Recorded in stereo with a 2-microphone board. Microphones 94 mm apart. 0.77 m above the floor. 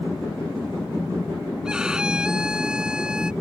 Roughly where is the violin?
Centre.